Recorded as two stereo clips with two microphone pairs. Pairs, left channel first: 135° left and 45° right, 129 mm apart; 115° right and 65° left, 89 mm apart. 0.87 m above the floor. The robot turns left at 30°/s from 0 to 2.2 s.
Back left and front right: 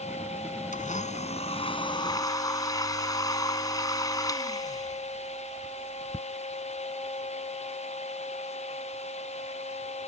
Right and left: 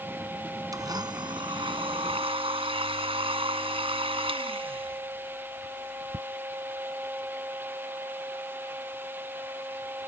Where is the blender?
115° left; by 6.3 s 70° left.